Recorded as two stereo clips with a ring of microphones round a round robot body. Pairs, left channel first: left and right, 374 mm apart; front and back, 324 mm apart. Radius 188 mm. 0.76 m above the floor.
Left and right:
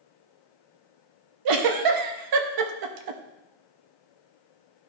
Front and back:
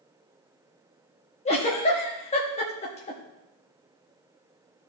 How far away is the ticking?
I don't hear ticking.